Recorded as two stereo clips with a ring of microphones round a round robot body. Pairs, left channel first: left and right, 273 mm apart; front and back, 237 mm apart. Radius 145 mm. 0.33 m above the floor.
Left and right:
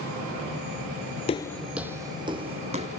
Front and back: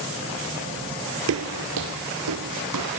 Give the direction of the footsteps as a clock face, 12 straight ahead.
7 o'clock.